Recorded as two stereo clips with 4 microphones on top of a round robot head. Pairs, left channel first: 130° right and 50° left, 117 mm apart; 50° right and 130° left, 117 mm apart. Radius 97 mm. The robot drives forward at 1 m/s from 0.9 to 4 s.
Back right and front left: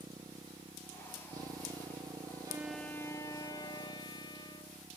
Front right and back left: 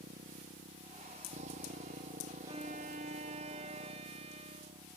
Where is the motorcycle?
110° left.